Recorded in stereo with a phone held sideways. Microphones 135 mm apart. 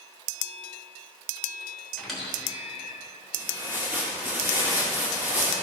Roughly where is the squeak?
Centre.